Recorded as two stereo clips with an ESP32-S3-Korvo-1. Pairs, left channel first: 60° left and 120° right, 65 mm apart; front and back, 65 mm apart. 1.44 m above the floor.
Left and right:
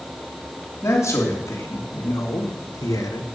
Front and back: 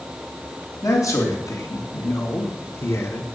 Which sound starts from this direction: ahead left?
A man speaking, at 0.8 s.